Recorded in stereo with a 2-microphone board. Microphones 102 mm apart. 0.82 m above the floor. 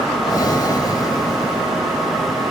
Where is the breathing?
40° left (ahead or behind).